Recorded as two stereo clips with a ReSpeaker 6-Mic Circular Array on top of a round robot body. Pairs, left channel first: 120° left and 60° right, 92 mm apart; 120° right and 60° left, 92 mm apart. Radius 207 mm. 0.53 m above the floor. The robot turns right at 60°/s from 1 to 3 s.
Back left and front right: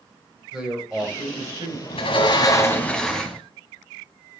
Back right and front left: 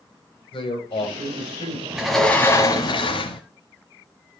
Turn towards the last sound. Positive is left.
turn(degrees=-155)